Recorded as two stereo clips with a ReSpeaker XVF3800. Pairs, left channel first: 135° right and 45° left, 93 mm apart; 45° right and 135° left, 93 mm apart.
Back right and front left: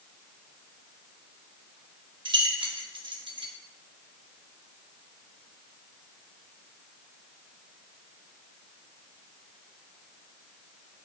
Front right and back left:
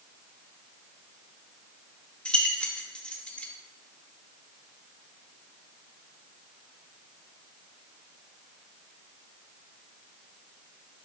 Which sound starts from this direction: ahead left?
Keys jangling, at 2.2 s.